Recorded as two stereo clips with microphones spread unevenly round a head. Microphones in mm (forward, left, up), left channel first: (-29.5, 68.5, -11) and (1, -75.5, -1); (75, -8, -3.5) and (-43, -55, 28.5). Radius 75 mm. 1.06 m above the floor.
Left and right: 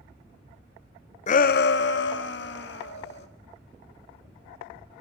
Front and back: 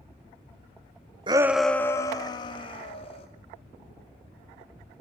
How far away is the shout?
About 0.5 m.